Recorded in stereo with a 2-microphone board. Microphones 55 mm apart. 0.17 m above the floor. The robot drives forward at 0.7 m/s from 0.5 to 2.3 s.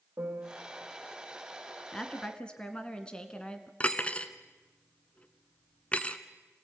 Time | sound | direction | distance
0.2 | a piano | 45° right (ahead or behind) | 3.5 m
1.9 | a woman speaking | 15° left (ahead or behind) | 1.9 m
3.8 | cutlery clinking | 25° left (ahead or behind) | 1.1 m